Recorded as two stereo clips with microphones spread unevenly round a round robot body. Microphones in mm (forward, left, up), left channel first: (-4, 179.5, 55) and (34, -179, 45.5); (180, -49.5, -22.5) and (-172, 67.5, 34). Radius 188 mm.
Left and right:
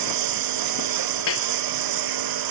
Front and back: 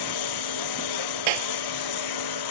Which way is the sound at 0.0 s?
55° right.